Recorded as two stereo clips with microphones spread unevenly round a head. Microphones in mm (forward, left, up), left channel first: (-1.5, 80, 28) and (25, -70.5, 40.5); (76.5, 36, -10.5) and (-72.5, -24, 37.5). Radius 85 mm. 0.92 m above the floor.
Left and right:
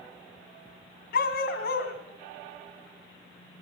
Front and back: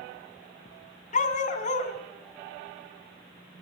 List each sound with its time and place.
1.1 s a dog barking: 75° left, 2.0 m